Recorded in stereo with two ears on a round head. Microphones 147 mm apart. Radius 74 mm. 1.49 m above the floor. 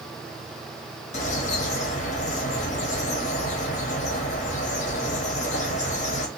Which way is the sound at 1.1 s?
45° left (ahead or behind).